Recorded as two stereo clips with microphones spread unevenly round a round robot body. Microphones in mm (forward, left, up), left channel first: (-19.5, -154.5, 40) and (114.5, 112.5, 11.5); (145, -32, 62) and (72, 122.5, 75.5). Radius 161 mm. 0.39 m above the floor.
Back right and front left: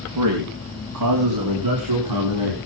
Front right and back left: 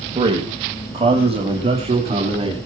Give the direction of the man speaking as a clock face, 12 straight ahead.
10 o'clock.